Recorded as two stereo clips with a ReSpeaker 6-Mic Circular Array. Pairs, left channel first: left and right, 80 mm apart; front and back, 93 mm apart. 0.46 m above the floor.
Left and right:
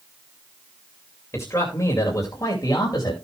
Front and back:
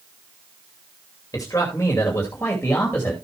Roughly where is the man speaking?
Ahead left.